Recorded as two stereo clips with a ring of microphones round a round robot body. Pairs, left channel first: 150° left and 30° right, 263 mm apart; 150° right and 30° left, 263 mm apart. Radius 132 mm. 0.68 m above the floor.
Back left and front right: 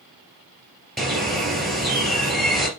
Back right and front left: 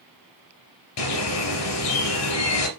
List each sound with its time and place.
1.0 s a bird: 120° right, 2.5 m